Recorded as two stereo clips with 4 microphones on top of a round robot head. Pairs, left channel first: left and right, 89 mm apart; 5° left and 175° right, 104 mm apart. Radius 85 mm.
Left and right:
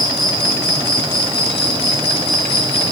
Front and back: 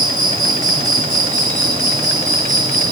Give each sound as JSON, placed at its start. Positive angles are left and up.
{"t": 0.0, "sound": "an insect", "azimuth_deg": 140, "distance_m": 4.5}